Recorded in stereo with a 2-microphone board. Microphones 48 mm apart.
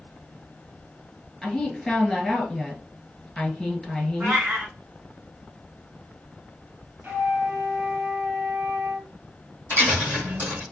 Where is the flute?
40° right (ahead or behind), 1.1 m.